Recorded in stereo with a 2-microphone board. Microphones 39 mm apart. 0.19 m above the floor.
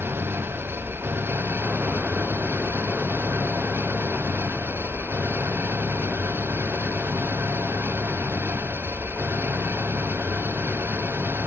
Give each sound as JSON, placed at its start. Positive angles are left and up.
{"t": 0.0, "sound": "an engine running", "side_deg": -80}